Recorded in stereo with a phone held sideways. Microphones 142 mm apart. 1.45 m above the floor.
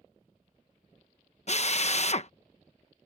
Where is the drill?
50° left (ahead or behind).